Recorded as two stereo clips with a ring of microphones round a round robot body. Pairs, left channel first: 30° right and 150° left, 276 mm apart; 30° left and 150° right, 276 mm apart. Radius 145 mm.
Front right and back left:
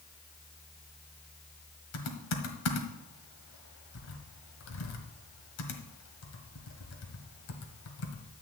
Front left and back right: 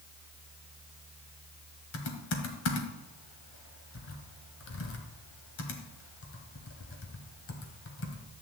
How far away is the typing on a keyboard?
About 1.5 m.